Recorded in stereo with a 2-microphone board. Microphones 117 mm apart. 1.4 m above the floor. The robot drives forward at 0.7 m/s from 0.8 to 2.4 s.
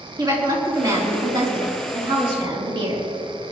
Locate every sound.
0.2 s a woman speaking: 35° right (ahead or behind), 4 m; by 3.1 s 45° right (ahead or behind), 3 m